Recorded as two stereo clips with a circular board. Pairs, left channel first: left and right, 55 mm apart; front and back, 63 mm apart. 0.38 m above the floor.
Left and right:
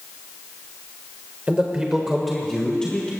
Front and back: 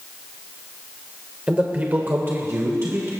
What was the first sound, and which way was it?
A man speaking, 130° right.